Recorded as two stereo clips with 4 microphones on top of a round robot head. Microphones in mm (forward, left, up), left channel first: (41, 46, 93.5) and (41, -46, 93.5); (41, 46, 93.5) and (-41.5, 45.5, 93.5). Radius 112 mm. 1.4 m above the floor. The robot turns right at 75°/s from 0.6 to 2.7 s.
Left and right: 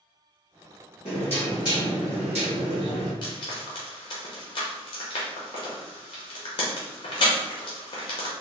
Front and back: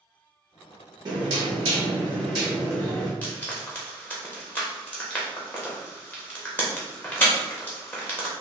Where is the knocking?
145° left, 0.8 m; by 3.1 s 95° right, 0.8 m.